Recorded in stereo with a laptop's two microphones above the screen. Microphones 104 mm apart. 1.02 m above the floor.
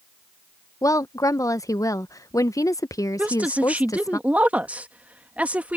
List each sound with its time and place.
0.8 s a woman speaking: 35° left (ahead or behind)
3.2 s a woman speaking: 15° right (ahead or behind)